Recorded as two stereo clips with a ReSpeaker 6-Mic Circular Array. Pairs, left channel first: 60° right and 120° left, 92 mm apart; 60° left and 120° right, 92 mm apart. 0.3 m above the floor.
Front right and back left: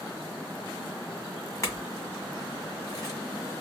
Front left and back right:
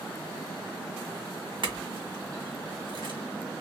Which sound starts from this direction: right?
A clink, at 1.6 s.